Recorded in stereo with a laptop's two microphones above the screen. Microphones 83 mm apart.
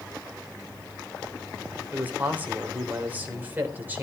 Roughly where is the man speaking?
Right.